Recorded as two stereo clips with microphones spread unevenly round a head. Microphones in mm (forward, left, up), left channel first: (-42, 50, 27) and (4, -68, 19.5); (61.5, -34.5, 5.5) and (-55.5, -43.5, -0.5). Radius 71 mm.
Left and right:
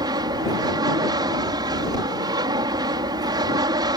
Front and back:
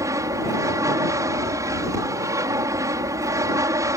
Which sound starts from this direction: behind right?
An aircraft, at 0.0 s.